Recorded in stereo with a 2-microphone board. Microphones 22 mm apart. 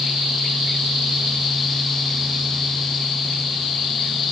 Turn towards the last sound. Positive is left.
No sound to turn to.